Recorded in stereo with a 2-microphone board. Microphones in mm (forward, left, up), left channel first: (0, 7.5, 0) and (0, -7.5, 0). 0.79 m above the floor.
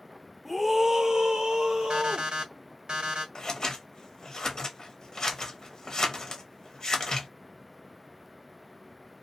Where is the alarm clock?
80° right, 1.3 m.